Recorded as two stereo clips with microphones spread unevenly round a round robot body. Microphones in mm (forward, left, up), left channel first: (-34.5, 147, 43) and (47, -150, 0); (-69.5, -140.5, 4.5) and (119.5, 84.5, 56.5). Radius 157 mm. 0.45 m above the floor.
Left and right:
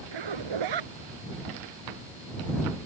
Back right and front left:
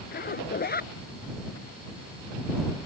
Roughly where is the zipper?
Right.